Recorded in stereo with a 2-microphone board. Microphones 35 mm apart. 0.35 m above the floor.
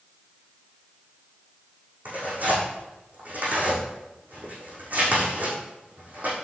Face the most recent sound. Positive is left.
turn(degrees=-55)  # may be behind; listen again after turning